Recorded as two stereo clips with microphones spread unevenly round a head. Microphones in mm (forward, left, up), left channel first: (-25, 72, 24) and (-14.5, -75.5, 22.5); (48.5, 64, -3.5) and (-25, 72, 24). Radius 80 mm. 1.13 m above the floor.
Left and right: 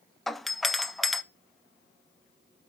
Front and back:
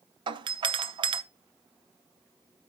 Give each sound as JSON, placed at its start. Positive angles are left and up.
{"t": 0.3, "sound": "a doorbell", "azimuth_deg": -175, "distance_m": 0.6}